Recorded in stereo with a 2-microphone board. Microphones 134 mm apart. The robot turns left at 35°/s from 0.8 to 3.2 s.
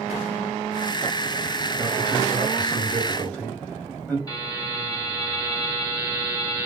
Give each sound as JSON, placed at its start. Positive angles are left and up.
{"t": 1.8, "sound": "a man speaking", "side_deg": -10, "distance_m": 1.6}
{"t": 4.3, "sound": "a buzzer", "side_deg": 25, "distance_m": 1.6}